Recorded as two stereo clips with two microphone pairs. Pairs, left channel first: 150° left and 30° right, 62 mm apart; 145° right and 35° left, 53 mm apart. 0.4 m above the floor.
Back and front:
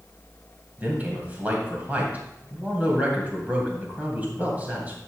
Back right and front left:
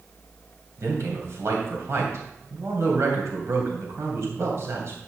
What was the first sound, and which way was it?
A man speaking, 35° left.